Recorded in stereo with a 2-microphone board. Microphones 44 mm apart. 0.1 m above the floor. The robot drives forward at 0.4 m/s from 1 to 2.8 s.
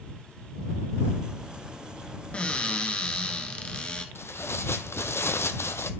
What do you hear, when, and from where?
2.3 s a cupboard door: 25° left (ahead or behind), 1.1 m
4.2 s tearing paper: 70° left (ahead or behind), 0.6 m